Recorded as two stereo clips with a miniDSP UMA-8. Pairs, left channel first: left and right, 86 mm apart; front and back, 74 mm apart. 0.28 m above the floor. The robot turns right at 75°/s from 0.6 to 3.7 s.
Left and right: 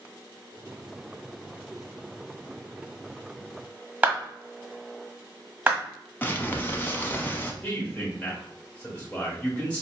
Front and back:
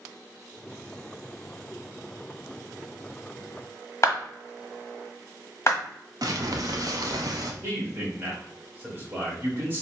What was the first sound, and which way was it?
A clap, 30° right.